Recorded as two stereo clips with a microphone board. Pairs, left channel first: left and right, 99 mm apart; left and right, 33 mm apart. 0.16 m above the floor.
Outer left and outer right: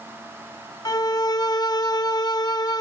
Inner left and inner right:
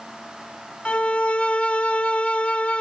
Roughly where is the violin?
Left.